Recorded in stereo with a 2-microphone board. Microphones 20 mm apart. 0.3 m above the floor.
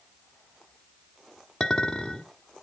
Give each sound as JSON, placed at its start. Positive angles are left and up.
{"t": 1.6, "sound": "a clink", "side_deg": 30, "distance_m": 1.4}